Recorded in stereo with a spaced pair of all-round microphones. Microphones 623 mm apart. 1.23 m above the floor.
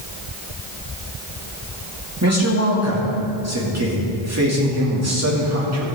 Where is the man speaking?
25° right (ahead or behind), 2.5 m.